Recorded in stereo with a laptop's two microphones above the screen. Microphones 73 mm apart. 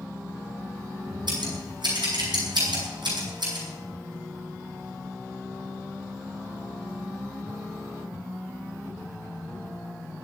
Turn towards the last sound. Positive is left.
turn(degrees=-80)